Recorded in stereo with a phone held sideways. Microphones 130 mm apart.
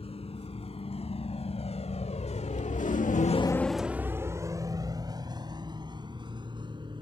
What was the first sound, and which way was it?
A vehicle, 50° left (ahead or behind).